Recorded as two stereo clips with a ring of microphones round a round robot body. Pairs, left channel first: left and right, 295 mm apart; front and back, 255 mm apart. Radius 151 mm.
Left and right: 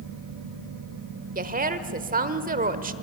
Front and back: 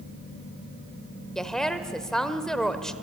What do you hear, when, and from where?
1.4 s a woman speaking: 85° right, 1.1 m